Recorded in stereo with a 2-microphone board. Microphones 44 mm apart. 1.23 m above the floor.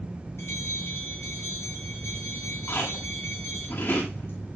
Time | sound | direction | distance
0.4 | a bell | 85° left | 8 m
2.7 | chewing | 65° left (ahead or behind) | 8.5 m